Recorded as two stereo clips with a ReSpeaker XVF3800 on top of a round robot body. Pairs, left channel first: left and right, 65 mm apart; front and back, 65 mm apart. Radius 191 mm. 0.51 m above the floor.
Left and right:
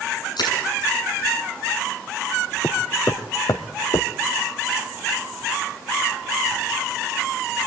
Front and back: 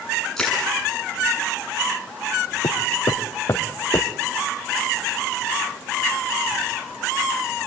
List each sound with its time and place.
0.4 s crushing: 85° left, 8 m
2.6 s footsteps: 30° left, 2.5 m; by 4.1 s 75° left, 1.8 m